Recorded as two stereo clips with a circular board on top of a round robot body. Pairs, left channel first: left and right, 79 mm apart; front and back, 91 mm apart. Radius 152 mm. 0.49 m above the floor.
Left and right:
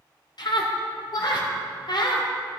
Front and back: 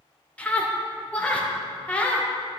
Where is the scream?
75° left, 2 m.